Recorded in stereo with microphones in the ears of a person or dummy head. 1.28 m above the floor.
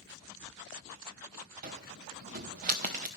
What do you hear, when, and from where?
1.6 s a cupboard door: 25° right (ahead or behind), 0.8 m